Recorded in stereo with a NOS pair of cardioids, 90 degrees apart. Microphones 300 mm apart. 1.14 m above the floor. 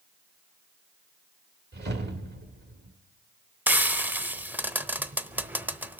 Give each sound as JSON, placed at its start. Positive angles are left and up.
{"t": 1.7, "sound": "a whoosh", "azimuth_deg": -35, "distance_m": 1.9}
{"t": 3.7, "sound": "frying", "azimuth_deg": -5, "distance_m": 0.6}